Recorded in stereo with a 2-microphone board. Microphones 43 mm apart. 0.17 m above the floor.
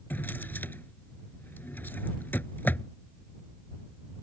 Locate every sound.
0.1 s a drawer: 55° left (ahead or behind)